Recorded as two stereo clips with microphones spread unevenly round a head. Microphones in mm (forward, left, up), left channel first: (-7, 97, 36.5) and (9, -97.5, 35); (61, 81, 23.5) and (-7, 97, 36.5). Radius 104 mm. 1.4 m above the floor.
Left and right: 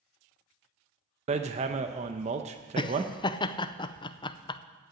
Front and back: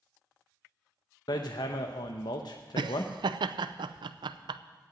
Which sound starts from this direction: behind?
Laughter, at 2.8 s.